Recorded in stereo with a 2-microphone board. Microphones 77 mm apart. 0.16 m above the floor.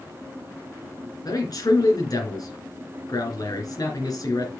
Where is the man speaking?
55° left (ahead or behind), 3 m.